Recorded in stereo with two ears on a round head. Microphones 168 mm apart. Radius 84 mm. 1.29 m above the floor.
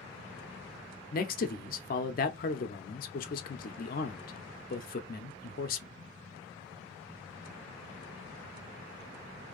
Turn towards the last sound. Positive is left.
turn(degrees=50)  # may be behind; listen again after turning